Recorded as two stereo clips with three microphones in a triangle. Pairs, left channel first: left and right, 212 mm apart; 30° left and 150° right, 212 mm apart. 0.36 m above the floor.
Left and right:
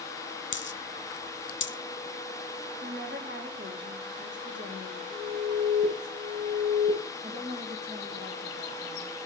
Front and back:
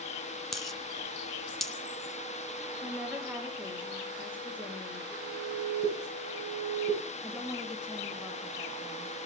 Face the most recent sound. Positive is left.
turn(degrees=-65)